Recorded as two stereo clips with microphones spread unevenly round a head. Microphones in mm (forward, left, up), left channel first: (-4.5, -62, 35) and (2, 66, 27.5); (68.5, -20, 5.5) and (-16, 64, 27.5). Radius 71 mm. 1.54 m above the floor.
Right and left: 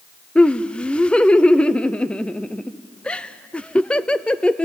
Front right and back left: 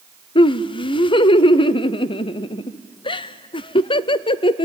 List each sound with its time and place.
0.3 s laughter: 10° right, 0.6 m